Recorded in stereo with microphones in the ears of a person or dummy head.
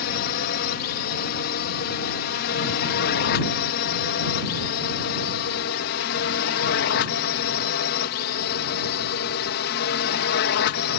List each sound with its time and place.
0.0 s a drone: 45° left (ahead or behind); by 11.0 s 55° left (ahead or behind)